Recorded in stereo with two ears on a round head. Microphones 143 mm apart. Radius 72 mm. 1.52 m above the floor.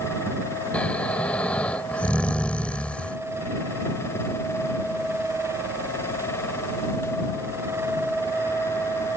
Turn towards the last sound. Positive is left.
turn(degrees=5)  # may be behind; listen again after turning